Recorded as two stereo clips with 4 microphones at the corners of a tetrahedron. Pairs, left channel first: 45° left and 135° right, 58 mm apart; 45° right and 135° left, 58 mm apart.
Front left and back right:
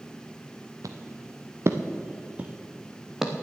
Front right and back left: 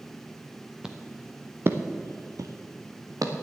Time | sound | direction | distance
0.8 | footsteps | 150° right | 1.2 m